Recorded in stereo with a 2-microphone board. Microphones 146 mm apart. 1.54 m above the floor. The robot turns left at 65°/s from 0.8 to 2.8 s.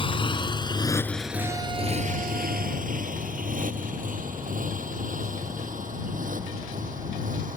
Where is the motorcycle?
35° left (ahead or behind); by 7.6 s 65° right (ahead or behind).